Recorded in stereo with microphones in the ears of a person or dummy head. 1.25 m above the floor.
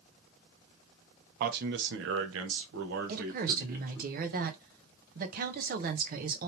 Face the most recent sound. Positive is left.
turn(degrees=-45)  # may be behind; listen again after turning